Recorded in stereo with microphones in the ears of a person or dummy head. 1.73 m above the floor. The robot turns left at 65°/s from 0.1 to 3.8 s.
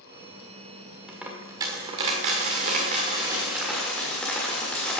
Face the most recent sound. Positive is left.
turn(degrees=175)